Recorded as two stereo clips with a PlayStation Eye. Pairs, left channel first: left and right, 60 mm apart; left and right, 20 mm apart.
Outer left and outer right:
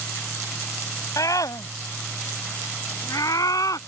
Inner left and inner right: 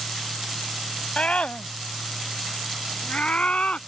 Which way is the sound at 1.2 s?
80° left.